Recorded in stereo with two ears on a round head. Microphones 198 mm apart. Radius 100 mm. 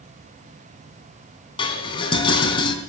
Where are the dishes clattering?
25° left (ahead or behind), 3.5 m.